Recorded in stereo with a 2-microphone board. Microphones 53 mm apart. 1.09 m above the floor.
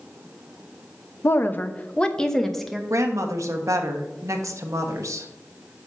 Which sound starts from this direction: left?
A woman speaking, at 1.2 s.